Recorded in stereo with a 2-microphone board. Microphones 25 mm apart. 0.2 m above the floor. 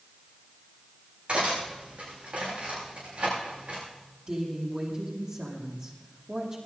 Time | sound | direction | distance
1.3 | cutlery clinking | 65° right (ahead or behind) | 10 m
4.3 | a woman speaking | 30° right (ahead or behind) | 7 m